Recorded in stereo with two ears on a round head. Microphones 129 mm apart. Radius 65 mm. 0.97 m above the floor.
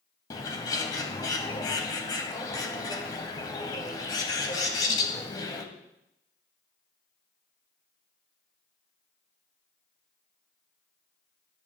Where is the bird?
25° left (ahead or behind), 1.0 m.